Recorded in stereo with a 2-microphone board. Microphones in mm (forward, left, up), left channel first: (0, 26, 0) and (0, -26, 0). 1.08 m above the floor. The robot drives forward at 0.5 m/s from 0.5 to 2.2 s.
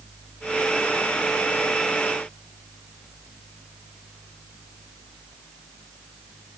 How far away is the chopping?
No chopping in this recording.